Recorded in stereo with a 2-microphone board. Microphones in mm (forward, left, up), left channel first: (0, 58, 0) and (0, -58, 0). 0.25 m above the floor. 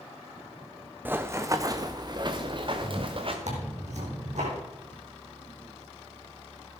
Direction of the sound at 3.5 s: 80° right.